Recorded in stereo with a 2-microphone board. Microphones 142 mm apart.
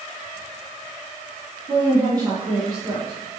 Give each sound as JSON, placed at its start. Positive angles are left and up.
{"t": 1.7, "sound": "a woman speaking", "side_deg": -25, "distance_m": 3.0}